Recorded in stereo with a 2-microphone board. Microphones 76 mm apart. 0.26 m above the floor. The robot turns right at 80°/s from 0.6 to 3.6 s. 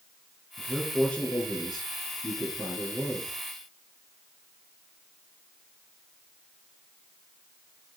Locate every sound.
0.6 s a man speaking: 25° right, 4.5 m; by 3.3 s 170° right, 4.5 m